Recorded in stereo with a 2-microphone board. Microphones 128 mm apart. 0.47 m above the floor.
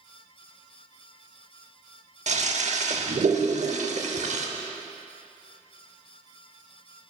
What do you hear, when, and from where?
2.3 s a toilet flushing: 65° right (ahead or behind), 0.7 m